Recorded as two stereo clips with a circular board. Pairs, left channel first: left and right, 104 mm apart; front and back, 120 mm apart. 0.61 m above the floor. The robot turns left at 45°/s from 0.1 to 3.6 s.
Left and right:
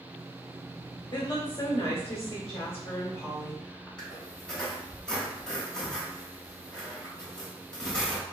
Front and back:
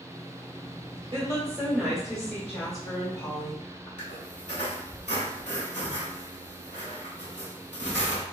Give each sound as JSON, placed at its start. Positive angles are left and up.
{"t": 1.1, "sound": "a woman speaking", "azimuth_deg": 140, "distance_m": 2.0}
{"t": 4.0, "sound": "a squeak", "azimuth_deg": 10, "distance_m": 1.6}